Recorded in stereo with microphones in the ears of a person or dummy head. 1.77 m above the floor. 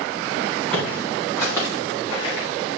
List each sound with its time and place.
0.7 s footsteps: 5° left (ahead or behind), 4 m; by 2.5 s 30° left (ahead or behind), 4.5 m